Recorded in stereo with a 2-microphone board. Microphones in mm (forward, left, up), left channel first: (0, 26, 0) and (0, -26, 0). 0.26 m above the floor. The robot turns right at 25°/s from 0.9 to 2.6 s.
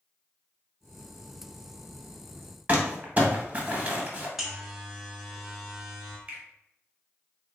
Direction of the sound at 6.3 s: 30° right (ahead or behind).